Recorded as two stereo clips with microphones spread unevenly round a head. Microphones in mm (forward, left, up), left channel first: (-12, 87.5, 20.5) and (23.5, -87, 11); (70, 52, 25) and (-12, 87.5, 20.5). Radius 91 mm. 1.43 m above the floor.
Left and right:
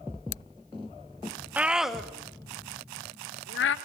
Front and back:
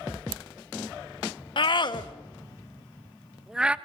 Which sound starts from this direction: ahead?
A scream, at 1.6 s.